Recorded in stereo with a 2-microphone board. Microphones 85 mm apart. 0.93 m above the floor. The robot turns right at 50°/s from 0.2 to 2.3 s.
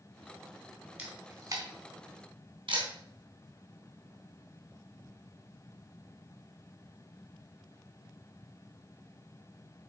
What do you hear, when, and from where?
1.0 s a camera shutter: 20° right (ahead or behind), 3 m; by 2.9 s 80° right, 3 m